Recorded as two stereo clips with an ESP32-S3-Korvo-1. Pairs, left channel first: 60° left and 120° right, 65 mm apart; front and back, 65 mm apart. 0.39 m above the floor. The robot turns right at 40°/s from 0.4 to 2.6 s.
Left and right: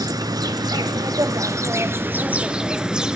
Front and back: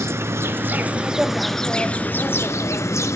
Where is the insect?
130° right, 0.9 m; by 3.2 s 45° right, 0.9 m.